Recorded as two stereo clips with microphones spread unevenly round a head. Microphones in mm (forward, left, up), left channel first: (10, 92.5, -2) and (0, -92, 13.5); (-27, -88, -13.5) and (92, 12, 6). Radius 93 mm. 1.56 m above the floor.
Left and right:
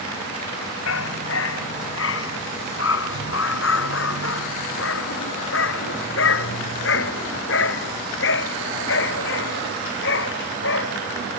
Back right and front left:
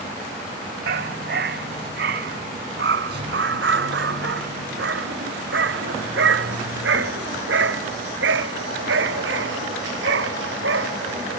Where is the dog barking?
70° left; by 11.3 s 60° left.